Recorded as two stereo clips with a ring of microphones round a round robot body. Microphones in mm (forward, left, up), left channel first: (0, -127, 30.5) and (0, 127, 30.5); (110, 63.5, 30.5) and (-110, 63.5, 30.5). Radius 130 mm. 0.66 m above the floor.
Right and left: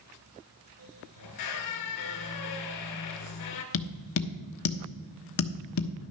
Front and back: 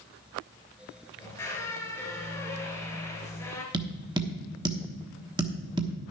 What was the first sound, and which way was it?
A squeak, 80° right.